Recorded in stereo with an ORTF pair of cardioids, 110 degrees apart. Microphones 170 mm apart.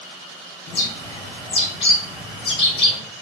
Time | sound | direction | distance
0.7 | a bird | 35° left | 1.2 m